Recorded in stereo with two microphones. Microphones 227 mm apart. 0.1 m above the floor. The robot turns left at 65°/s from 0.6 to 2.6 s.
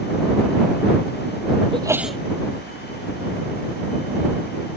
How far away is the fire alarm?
No fire alarm in this recording.